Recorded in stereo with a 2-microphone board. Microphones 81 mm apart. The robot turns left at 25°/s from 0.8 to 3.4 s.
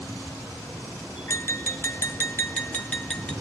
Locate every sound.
1.3 s tapping: 80° left, 1.3 m; by 3.3 s 25° left, 1.3 m